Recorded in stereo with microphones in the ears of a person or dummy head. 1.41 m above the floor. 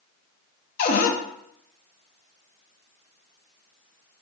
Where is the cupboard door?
45° left (ahead or behind), 0.5 m.